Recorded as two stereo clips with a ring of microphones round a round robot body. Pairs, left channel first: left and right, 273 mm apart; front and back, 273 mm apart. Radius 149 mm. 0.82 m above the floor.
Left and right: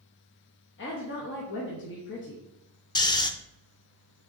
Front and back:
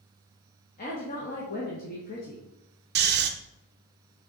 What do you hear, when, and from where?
0.8 s a woman speaking: 55° left, 1.0 m
3.0 s snoring: 155° left, 0.5 m